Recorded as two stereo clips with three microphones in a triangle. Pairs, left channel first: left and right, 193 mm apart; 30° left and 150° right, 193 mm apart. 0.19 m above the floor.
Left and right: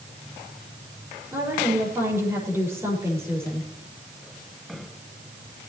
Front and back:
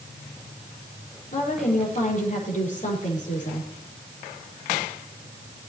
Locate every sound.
1.3 s a woman speaking: 15° right, 6 m